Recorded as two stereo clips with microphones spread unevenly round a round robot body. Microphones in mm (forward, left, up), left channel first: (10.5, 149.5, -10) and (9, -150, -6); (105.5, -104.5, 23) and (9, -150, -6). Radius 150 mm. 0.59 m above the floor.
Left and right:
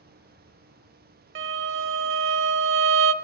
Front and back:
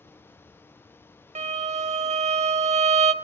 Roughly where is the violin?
Behind right.